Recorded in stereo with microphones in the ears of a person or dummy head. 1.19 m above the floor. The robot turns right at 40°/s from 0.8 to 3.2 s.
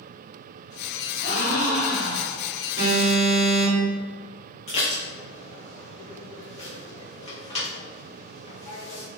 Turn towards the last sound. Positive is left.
turn(degrees=35)  # may be behind; listen again after turning